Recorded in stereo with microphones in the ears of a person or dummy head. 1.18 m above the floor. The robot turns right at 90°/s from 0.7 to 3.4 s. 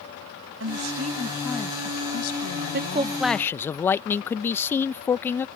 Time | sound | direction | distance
0.6 | a woman speaking | 70° right | ?
2.7 | a man speaking | 50° right | ?